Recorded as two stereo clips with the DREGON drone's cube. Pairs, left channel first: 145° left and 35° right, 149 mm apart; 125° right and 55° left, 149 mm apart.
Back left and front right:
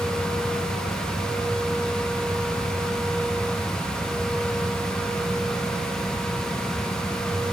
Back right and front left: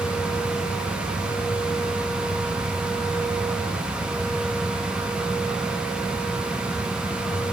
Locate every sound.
Only background noise.